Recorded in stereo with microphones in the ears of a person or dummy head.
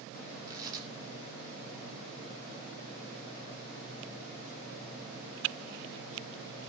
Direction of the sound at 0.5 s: 20° right (ahead or behind).